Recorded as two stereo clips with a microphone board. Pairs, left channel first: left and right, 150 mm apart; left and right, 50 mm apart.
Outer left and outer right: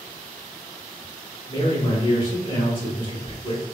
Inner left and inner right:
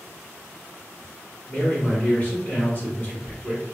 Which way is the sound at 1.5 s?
30° left (ahead or behind).